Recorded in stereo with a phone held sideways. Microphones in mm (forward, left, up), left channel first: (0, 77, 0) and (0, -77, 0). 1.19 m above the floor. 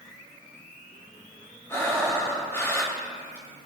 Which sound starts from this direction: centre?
Breathing, at 1.7 s.